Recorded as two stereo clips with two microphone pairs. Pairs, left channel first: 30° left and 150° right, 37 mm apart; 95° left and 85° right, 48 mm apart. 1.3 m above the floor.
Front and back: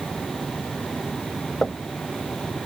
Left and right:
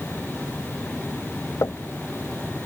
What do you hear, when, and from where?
1.6 s knocking: 90° left